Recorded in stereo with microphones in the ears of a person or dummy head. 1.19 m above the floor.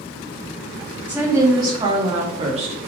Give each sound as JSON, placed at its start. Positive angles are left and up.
{"t": 1.1, "sound": "a woman speaking", "side_deg": -10, "distance_m": 2.0}